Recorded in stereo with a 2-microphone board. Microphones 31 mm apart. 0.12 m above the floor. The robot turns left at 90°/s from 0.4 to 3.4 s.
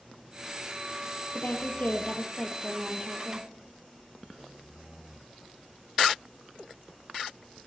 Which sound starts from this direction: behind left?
A woman speaking, at 1.3 s.